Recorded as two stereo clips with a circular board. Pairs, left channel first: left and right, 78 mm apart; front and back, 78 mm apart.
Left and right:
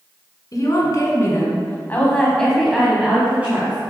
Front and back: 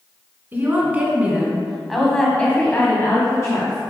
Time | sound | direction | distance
0.5 | a woman speaking | 120° left | 2.5 m